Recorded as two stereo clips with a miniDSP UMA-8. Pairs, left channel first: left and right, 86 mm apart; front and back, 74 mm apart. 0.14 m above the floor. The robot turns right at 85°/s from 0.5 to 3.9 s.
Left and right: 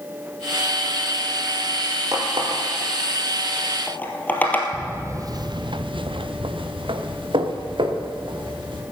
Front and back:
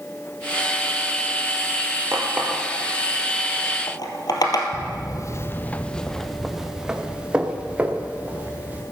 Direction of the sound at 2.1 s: 130° right.